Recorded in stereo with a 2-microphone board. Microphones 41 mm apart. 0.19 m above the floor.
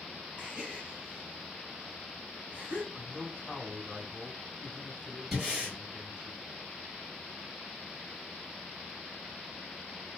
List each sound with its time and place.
0.4 s a gasp: 30° right (ahead or behind), 1.4 m
2.9 s a man speaking: 25° left (ahead or behind), 1.2 m
5.3 s breathing: 5° right (ahead or behind), 1.8 m